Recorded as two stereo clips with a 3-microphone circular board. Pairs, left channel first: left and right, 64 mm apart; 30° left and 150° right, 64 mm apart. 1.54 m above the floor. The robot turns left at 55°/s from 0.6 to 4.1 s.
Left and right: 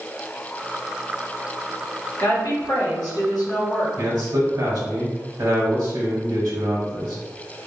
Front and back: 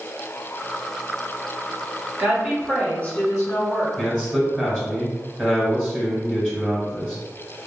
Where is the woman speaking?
145° left, 1.5 m; by 3.9 s 55° left, 1.5 m.